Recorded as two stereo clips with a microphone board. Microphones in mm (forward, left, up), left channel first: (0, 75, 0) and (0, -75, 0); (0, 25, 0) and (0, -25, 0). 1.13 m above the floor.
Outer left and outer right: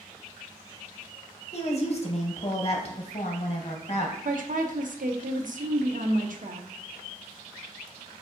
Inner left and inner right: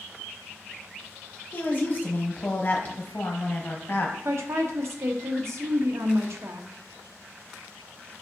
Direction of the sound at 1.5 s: 45° left (ahead or behind).